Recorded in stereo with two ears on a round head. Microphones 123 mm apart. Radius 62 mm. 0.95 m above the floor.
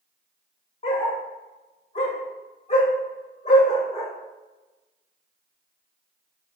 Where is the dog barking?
45° left (ahead or behind), 1.6 m.